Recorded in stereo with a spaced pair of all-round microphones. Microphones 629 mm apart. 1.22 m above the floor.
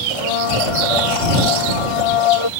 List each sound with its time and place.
0.1 s a blender: 55° left (ahead or behind)